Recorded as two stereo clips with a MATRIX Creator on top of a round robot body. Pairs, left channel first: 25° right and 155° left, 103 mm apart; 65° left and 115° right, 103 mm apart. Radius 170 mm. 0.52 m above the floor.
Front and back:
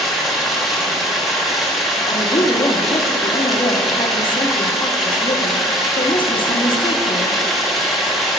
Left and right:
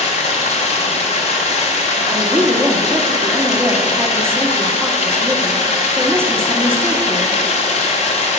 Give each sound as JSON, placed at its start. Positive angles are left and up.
{"t": 0.0, "sound": "running water", "azimuth_deg": 70, "distance_m": 0.8}
{"t": 2.1, "sound": "a woman speaking", "azimuth_deg": -50, "distance_m": 1.0}